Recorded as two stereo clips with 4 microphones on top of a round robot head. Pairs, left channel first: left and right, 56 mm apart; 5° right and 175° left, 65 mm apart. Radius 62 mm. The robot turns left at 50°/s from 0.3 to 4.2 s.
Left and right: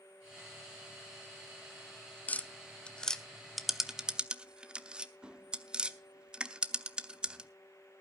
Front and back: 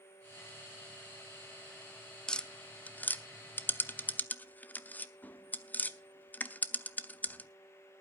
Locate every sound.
2.3 s tapping: 60° left, 0.9 m; by 7.5 s 35° right, 0.9 m